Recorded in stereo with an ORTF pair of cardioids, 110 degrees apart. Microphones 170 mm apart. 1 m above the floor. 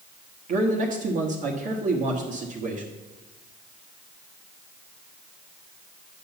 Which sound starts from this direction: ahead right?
A man speaking, at 0.5 s.